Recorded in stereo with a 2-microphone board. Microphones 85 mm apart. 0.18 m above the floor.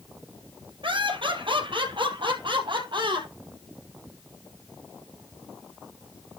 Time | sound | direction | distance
0.8 | laughter | 75° right (ahead or behind) | 4 m